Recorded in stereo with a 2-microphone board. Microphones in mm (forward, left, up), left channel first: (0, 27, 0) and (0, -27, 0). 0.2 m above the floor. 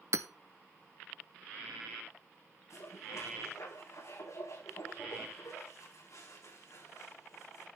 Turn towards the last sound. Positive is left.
turn(degrees=70)  # may be behind; listen again after turning